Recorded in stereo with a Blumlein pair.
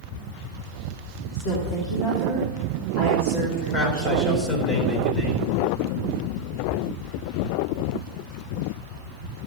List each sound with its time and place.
1.3 s a woman speaking: 40° left, 3.5 m
3.7 s a man speaking: 25° left, 3.5 m